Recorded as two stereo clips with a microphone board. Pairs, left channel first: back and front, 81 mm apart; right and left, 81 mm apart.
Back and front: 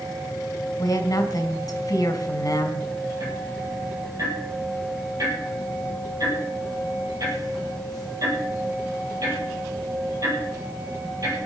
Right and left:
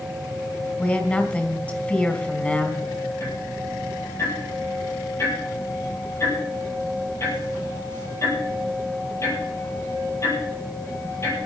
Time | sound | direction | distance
0.8 | a woman speaking | 160° right | 2.5 m
3.2 | ticking | 40° right | 6.5 m